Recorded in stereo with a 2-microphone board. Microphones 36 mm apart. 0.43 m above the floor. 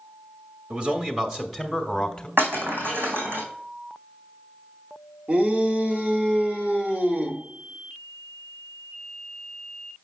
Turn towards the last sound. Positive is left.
turn(degrees=-30)  # may be behind; listen again after turning